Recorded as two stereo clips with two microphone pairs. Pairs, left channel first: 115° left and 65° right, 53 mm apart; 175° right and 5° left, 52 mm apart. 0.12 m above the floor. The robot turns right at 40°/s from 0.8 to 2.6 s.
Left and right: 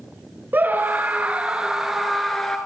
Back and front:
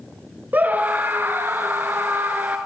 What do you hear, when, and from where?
0.5 s a scream: 30° right, 1.6 m; by 2.6 s 40° left, 1.6 m